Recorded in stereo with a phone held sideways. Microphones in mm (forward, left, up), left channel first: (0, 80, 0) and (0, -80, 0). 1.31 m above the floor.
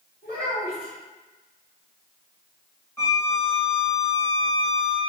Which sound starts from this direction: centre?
A violin, at 3.0 s.